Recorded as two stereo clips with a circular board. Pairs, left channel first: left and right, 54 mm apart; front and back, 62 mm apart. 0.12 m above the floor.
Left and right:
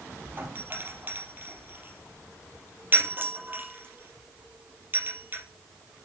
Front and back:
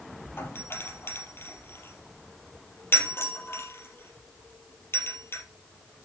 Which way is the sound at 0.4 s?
45° right.